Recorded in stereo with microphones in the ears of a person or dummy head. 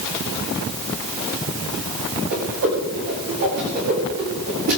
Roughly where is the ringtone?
I don't hear a ringtone.